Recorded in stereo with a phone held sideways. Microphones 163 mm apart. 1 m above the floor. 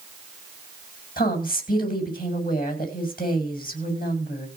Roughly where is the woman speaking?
Left.